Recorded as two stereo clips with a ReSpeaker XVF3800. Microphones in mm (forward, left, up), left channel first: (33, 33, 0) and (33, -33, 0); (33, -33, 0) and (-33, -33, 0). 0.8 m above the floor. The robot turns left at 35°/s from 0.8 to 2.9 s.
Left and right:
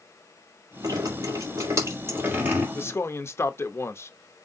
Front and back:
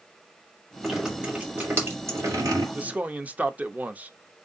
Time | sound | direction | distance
0.8 | dripping | 95° right | 2.5 m
2.8 | a man speaking | 125° left | 0.6 m